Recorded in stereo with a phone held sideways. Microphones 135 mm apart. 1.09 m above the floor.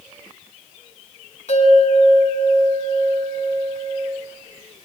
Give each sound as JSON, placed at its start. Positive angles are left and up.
{"t": 1.5, "sound": "a bell", "side_deg": 55, "distance_m": 8.0}